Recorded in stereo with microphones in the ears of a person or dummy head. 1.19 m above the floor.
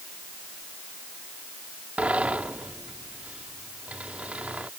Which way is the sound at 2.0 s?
5° right (ahead or behind).